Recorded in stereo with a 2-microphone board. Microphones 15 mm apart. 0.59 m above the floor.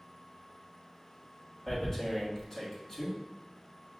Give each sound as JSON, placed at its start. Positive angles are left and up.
{"t": 1.7, "sound": "tearing paper", "side_deg": 25, "distance_m": 1.3}